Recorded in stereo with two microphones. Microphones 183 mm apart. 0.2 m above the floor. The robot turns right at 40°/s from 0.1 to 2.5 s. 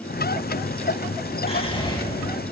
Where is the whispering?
35° left (ahead or behind), 2 m; by 2.0 s 20° left (ahead or behind), 2 m.